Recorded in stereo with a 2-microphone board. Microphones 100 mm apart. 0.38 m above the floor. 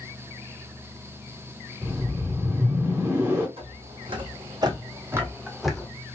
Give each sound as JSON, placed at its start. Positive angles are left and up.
{"t": 1.8, "sound": "a whoosh", "side_deg": -25, "distance_m": 1.2}
{"t": 3.6, "sound": "footsteps", "side_deg": -65, "distance_m": 1.3}